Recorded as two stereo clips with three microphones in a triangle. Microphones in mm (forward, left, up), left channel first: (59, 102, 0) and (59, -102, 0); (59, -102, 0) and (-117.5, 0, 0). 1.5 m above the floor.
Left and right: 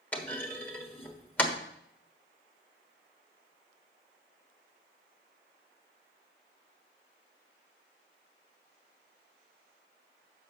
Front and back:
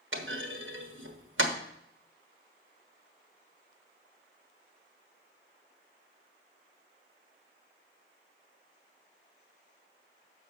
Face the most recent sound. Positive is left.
turn(degrees=170)